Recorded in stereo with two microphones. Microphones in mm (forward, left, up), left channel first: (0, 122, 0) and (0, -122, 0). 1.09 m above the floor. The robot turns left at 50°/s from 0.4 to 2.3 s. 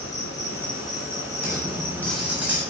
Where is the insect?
70° left, 4.5 m; by 2.7 s 25° right, 4.5 m.